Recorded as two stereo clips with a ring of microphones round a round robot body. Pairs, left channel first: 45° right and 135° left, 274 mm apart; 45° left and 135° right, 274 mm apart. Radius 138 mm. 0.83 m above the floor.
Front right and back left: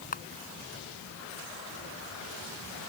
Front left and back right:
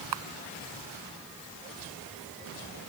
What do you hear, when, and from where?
0.1 s a camera shutter: 110° right